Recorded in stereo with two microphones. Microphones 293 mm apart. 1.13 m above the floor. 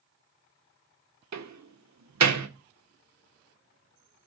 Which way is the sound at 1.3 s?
75° right (ahead or behind).